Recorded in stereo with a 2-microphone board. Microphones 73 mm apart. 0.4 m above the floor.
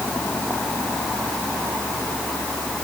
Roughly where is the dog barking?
I don't hear a dog barking.